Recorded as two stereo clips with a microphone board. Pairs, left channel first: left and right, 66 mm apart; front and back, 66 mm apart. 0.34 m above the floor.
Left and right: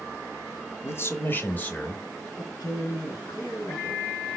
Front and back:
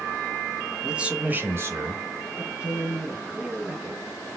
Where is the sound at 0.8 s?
105° left, 1.1 m; by 2.3 s 165° left, 1.5 m.